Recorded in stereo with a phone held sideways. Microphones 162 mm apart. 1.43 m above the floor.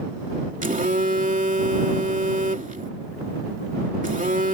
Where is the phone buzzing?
55° right (ahead or behind).